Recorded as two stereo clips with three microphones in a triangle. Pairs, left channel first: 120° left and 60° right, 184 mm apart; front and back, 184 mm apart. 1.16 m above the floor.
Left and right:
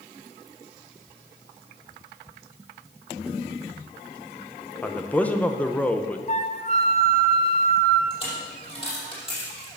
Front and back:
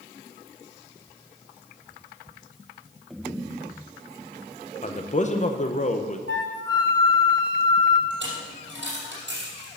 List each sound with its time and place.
4.8 s a man speaking: 40° left, 0.8 m
6.3 s a flute: 170° left, 1.0 m
8.1 s a dropped coin: straight behind, 5 m